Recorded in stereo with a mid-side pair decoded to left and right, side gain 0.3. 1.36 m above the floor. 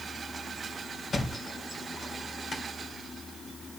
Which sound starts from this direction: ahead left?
A thud, at 1.1 s.